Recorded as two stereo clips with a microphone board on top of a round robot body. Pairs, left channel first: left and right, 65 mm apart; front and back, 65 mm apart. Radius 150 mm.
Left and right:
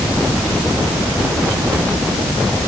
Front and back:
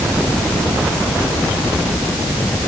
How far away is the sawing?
I don't hear sawing.